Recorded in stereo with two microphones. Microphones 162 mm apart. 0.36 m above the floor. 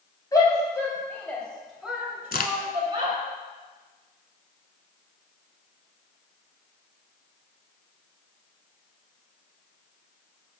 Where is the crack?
70° left (ahead or behind), 0.7 m.